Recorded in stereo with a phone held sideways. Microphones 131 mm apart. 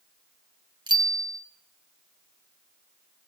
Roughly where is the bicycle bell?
Right.